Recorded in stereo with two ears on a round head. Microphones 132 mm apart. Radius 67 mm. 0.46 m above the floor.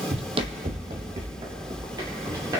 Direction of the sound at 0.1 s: 45° right (ahead or behind).